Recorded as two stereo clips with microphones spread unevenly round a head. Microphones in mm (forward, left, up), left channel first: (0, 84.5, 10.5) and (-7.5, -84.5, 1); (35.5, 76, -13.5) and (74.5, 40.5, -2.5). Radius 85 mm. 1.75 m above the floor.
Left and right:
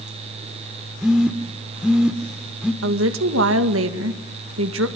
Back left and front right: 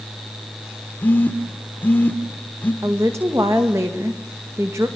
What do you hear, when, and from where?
1.0 s a phone buzzing: straight behind, 1.4 m
2.8 s a woman speaking: 100° right, 2.0 m